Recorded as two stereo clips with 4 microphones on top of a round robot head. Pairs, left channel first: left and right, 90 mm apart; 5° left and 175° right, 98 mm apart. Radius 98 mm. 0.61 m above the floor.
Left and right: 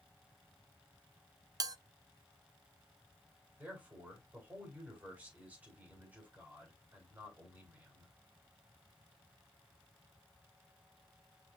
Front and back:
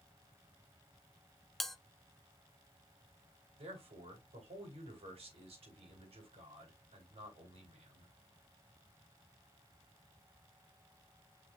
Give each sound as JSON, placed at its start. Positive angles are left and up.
{"t": 1.6, "sound": "a bell", "azimuth_deg": -85, "distance_m": 0.6}
{"t": 3.6, "sound": "a man speaking", "azimuth_deg": -165, "distance_m": 4.5}